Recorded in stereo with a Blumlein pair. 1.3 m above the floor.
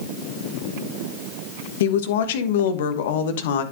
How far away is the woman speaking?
About 1.2 m.